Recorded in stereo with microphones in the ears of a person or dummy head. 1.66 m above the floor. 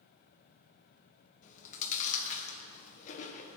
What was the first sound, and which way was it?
Chewing, 50° left (ahead or behind).